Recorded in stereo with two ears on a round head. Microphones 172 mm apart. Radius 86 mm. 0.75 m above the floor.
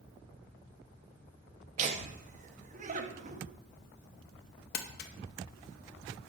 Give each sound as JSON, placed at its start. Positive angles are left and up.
{"t": 1.8, "sound": "laughter", "side_deg": -40, "distance_m": 0.7}
{"t": 4.7, "sound": "crumpling", "side_deg": 50, "distance_m": 0.6}